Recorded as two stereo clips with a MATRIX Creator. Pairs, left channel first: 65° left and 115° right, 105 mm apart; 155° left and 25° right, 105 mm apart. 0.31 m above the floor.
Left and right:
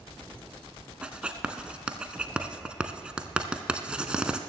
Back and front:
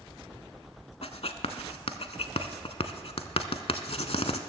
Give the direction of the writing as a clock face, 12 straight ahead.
6 o'clock.